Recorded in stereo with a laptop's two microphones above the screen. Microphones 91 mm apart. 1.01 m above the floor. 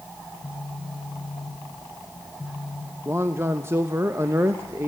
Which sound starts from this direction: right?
A man speaking, at 3.0 s.